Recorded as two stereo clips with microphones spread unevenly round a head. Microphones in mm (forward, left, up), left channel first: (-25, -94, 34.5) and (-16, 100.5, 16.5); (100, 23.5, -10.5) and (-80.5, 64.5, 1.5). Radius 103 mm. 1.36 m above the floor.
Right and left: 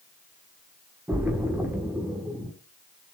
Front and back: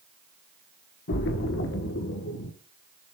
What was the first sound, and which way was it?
A splash, 10° left.